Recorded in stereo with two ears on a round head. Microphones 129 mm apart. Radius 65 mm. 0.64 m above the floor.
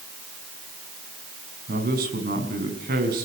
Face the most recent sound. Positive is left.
turn(degrees=-65)  # may be behind; listen again after turning